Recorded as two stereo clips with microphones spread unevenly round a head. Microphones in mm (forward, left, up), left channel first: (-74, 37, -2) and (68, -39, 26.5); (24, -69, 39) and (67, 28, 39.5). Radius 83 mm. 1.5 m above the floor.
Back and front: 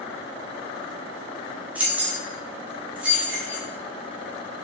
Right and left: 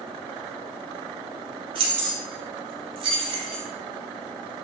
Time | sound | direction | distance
1.8 | keys jangling | 45° left | 0.6 m